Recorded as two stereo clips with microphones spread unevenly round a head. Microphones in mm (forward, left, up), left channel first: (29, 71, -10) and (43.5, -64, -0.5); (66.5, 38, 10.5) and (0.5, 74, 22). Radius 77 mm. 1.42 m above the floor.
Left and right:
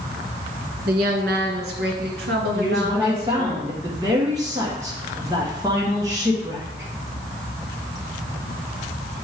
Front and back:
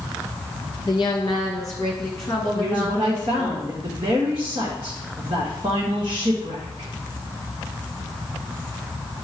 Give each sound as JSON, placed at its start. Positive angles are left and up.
{"t": 0.9, "sound": "a woman speaking", "azimuth_deg": -85, "distance_m": 1.5}
{"t": 2.5, "sound": "a woman speaking", "azimuth_deg": -155, "distance_m": 1.3}